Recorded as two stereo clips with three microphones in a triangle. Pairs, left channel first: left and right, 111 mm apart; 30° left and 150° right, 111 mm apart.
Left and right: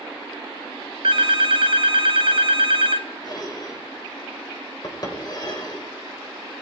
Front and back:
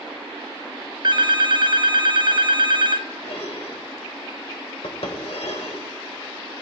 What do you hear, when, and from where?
1.0 s a phone ringing: 110° right, 0.8 m
3.2 s dishes clattering: 45° left, 2.5 m